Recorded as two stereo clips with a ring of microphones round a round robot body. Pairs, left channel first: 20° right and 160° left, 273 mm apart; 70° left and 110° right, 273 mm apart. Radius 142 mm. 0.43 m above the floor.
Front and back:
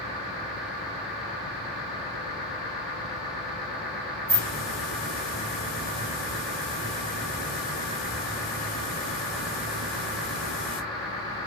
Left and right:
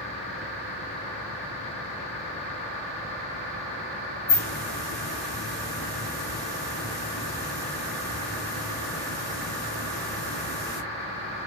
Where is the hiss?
20° right, 1.9 m.